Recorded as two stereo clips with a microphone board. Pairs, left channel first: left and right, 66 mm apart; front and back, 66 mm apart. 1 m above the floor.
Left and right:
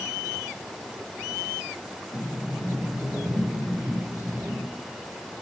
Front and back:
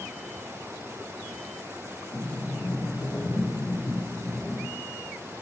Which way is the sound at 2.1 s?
20° right.